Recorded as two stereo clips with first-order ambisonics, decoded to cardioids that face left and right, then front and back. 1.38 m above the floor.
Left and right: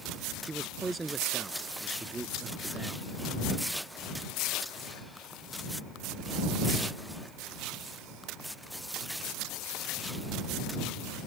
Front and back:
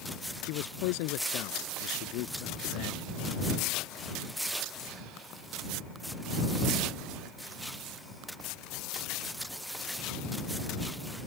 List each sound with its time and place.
0.4 s a man speaking: 10° right